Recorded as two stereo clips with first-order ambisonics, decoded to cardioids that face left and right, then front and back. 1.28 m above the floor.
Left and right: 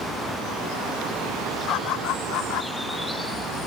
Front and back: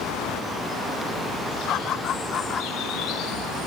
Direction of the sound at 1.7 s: 50° left.